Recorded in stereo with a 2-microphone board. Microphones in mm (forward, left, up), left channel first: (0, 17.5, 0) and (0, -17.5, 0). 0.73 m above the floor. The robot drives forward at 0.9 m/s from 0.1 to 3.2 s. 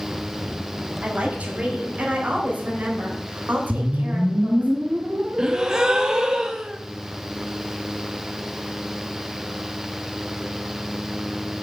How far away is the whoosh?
About 1.2 m.